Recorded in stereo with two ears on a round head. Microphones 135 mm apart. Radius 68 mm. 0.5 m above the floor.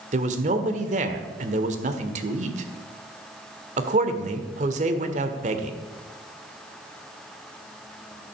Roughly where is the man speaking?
Right.